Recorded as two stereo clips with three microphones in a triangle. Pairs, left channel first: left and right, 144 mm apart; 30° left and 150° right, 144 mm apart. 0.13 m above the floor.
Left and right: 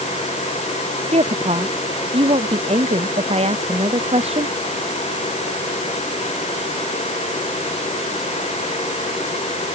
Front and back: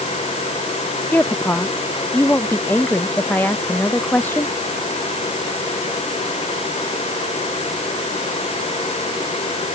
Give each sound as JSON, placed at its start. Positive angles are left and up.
{"t": 1.1, "sound": "a woman speaking", "azimuth_deg": -45}